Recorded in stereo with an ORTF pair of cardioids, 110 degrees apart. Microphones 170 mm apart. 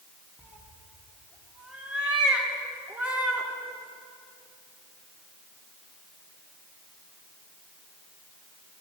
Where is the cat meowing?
5° right, 2.5 m.